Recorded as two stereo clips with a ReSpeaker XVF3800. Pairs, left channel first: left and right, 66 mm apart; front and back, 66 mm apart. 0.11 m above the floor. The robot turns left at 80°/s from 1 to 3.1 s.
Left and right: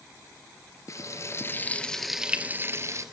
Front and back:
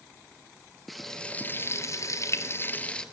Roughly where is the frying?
Left.